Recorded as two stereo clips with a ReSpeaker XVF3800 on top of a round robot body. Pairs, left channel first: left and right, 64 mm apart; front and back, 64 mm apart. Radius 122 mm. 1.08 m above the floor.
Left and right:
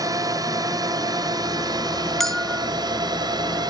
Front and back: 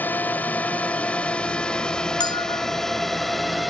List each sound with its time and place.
0.0 s a drone: 65° right; by 3.7 s 90° right
2.2 s a bell: 5° left